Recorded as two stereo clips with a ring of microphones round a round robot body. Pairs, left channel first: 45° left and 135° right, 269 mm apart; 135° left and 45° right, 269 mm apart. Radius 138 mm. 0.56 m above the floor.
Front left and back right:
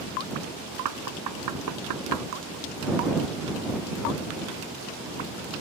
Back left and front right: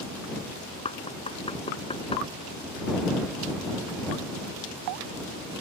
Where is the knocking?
155° right.